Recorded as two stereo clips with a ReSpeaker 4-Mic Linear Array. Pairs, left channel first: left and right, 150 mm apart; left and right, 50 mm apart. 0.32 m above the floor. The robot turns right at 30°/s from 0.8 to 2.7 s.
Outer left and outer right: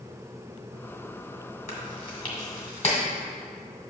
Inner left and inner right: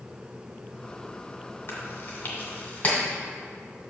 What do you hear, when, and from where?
1.7 s chewing: 60° left (ahead or behind), 1.6 m; by 3.0 s 40° left (ahead or behind), 1.6 m